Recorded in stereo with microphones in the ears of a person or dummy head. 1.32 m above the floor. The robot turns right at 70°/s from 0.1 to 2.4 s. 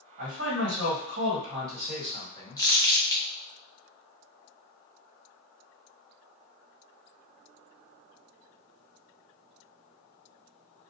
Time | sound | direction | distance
0.2 | a man speaking | 130° right | 1.5 m
2.6 | crumpling | 25° left (ahead or behind) | 0.6 m